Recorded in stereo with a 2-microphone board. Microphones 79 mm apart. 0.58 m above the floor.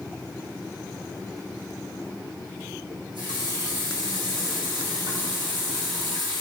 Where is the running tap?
80° right, 3.5 m.